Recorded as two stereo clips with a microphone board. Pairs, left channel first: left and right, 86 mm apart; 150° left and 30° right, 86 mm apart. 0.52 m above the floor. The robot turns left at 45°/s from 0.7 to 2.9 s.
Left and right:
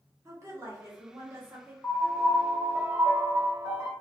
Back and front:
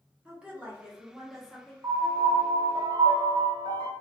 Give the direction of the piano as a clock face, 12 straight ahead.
11 o'clock.